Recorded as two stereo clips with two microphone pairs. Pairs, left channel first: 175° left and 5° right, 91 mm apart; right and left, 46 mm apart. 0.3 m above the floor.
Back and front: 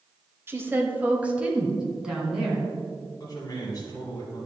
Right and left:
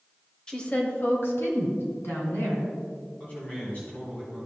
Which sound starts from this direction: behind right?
A man speaking, at 3.2 s.